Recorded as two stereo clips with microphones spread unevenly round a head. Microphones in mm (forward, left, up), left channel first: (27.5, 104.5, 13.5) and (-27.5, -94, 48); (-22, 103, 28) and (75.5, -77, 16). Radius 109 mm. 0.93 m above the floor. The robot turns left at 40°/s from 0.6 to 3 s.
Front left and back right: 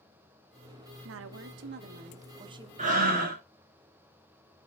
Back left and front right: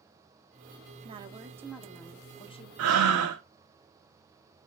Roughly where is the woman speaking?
Behind right.